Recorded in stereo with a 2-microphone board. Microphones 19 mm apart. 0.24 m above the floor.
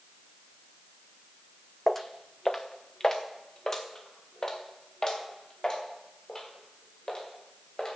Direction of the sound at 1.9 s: 15° left (ahead or behind).